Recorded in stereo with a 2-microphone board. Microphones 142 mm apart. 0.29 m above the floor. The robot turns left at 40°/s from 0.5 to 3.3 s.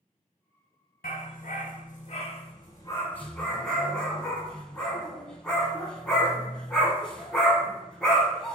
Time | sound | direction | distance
1.0 | a dog barking | 75° left (ahead or behind) | 0.7 m